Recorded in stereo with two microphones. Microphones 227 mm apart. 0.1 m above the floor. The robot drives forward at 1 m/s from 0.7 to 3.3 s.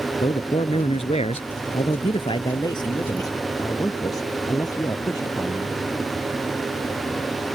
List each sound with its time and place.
0.2 s a man speaking: 25° left (ahead or behind); by 5.8 s 15° left (ahead or behind)